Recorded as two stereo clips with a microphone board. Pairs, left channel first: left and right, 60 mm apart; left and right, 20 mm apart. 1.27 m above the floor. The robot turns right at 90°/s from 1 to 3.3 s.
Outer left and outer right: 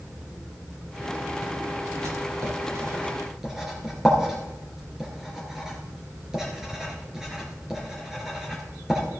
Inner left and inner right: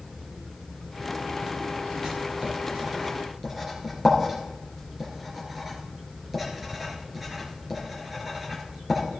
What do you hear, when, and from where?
2.0 s writing: 55° right (ahead or behind), 3.5 m; by 9.0 s 10° right (ahead or behind), 3.5 m